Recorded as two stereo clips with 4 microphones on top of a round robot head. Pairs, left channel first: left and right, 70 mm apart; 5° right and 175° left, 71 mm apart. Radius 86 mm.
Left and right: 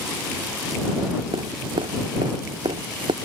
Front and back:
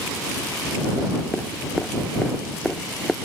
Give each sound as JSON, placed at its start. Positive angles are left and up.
{"t": 1.3, "sound": "dripping", "azimuth_deg": -90}